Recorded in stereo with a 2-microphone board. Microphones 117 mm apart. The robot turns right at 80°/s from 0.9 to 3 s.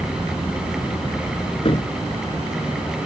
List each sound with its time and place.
1.6 s a cupboard door: 50° left (ahead or behind); by 3.1 s 30° right (ahead or behind)